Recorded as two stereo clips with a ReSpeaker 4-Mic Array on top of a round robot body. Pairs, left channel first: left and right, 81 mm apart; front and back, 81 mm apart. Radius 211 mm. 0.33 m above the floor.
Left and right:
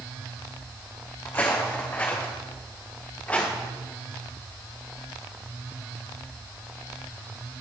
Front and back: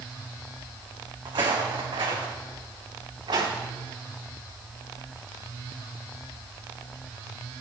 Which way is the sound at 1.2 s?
150° left.